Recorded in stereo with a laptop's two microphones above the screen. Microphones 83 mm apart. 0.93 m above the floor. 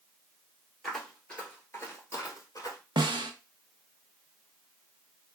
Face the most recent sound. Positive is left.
turn(degrees=-70)  # may be behind; listen again after turning